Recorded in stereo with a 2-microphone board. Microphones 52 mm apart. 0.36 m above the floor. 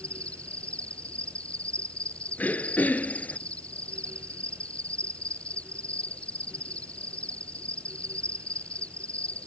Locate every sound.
0.0 s an insect: 25° left (ahead or behind)
2.4 s throat clearing: 35° left (ahead or behind)